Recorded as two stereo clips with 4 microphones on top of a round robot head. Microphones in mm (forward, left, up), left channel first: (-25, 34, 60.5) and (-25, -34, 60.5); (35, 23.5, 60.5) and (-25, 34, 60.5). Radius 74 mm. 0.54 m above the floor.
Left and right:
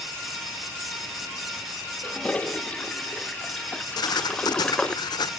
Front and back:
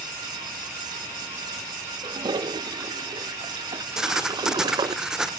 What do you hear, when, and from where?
2.0 s a toilet flushing: 165° left, 0.8 m
4.0 s writing: 90° left, 1.2 m